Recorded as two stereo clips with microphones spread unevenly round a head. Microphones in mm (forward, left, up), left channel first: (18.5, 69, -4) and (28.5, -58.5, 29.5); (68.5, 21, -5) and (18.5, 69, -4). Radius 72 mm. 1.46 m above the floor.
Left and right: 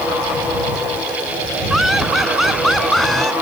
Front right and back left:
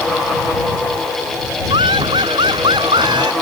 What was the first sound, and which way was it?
Laughter, 170° right.